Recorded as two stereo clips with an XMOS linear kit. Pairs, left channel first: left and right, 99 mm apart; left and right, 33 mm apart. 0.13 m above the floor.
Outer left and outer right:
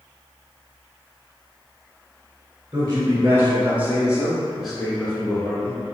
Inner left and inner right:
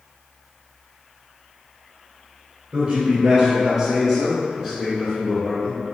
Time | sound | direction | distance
2.7 | a man speaking | 35° right (ahead or behind) | 1.4 m